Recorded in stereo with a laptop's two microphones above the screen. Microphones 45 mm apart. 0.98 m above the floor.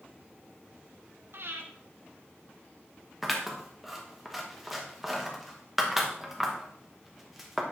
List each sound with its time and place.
1.3 s breathing: 60° right (ahead or behind), 1.3 m
3.2 s scissors: 5° right (ahead or behind), 1.0 m